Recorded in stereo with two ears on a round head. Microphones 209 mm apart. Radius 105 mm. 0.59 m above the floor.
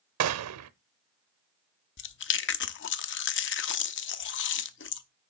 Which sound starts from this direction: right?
A gunshot, at 0.2 s.